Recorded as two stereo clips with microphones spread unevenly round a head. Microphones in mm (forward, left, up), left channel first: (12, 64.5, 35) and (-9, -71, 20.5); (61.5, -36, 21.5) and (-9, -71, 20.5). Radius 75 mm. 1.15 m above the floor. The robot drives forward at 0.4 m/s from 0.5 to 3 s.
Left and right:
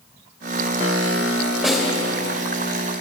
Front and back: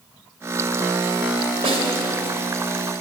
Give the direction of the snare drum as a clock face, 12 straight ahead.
6 o'clock.